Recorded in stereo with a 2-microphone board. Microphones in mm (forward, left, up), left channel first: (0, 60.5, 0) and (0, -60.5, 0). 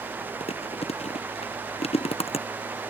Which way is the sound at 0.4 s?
55° left (ahead or behind).